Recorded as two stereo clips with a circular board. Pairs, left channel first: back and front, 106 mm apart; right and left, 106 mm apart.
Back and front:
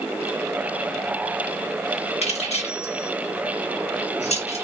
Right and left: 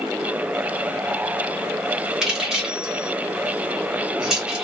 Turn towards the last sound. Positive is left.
turn(degrees=175)